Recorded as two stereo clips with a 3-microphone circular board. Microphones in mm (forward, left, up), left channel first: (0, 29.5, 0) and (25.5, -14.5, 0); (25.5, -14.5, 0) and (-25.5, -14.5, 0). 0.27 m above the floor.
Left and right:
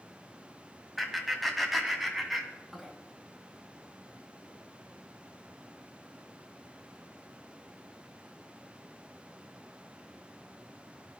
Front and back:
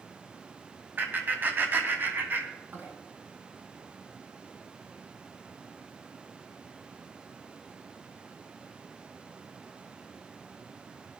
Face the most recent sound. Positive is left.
turn(degrees=-150)